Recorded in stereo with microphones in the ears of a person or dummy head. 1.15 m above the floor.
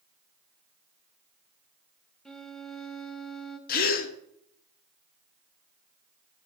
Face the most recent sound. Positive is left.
turn(degrees=50)  # may be behind; listen again after turning